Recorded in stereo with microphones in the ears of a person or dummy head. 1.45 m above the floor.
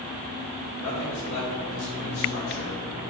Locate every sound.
0.8 s a man speaking: 70° left (ahead or behind), 2 m